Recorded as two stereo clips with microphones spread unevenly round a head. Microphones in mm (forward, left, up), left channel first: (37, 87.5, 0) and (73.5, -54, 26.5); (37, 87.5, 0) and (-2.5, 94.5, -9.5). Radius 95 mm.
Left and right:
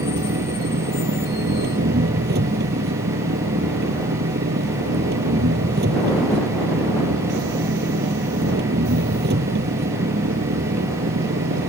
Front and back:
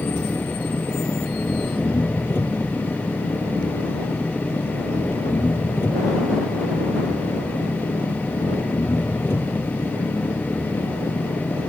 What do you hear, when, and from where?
0.0 s an engine running: 75° right